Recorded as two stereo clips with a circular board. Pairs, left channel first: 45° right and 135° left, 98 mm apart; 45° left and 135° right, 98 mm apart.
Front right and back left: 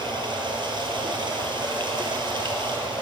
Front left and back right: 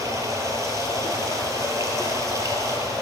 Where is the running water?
170° left, 2 m.